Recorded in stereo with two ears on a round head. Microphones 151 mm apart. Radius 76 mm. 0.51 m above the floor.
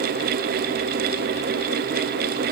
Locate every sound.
Only background noise.